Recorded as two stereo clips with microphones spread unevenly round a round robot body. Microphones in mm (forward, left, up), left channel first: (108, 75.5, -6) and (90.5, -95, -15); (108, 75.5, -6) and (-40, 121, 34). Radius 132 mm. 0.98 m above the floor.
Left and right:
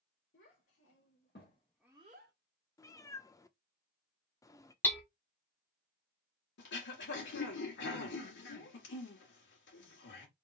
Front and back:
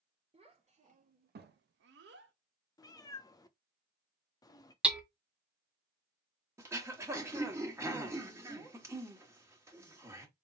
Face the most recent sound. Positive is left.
turn(degrees=90)